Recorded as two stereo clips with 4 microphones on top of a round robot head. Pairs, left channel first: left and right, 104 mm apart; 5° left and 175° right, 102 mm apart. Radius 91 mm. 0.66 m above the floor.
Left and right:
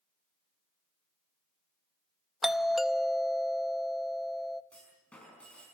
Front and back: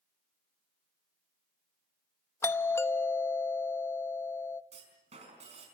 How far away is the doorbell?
About 0.9 m.